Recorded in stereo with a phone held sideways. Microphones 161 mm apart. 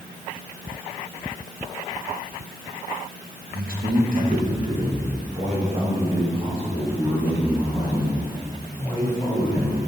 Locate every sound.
3.5 s a man speaking: 65° right (ahead or behind), 1.4 m; by 9.9 s 25° right (ahead or behind), 5 m